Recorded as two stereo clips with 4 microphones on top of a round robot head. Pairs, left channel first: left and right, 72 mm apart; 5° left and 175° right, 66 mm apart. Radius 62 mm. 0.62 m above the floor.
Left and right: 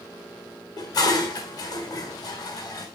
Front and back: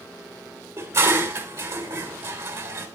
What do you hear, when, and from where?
0.8 s dishes clattering: 130° left, 1.5 m